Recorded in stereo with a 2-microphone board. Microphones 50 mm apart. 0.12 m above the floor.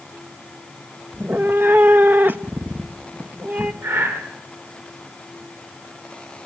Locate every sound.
1.1 s a cat meowing: 35° right (ahead or behind), 0.6 m
3.8 s breathing: 70° right (ahead or behind), 9.5 m